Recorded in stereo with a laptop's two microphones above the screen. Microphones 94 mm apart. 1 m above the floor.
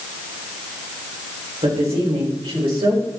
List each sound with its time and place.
1.6 s a woman speaking: 85° right, 4 m; by 3.1 s 75° right (ahead or behind), 5 m